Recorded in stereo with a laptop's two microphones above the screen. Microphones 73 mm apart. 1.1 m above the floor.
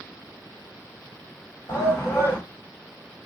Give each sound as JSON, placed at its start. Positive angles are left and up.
{"t": 1.7, "sound": "a shout", "side_deg": 40, "distance_m": 1.4}